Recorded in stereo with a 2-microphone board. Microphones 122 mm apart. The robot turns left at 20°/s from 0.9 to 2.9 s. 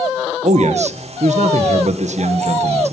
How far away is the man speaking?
About 1.3 m.